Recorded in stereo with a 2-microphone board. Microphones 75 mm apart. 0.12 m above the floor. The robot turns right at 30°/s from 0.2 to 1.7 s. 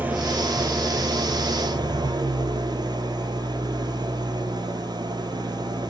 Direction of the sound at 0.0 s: 155° right.